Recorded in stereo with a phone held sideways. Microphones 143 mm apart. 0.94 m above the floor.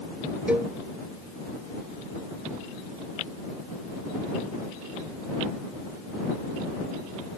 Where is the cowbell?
10° right (ahead or behind).